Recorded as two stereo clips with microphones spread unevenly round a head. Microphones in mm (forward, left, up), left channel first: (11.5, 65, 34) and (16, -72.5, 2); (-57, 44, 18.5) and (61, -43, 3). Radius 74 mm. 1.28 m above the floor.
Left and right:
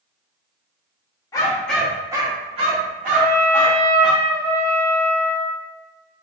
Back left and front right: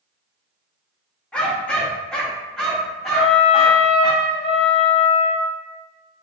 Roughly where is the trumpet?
Behind.